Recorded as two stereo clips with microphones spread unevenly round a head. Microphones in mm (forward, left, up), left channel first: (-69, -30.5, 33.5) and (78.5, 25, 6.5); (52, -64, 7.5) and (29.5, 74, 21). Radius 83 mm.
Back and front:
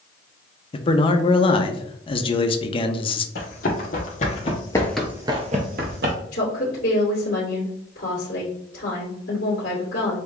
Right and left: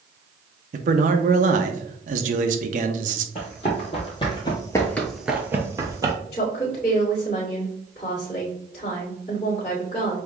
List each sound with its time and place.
0.7 s a man speaking: 140° left, 0.6 m
3.4 s running footsteps: 140° right, 2.5 m; by 6.2 s 45° left, 1.5 m
6.3 s a woman speaking: 140° right, 2.5 m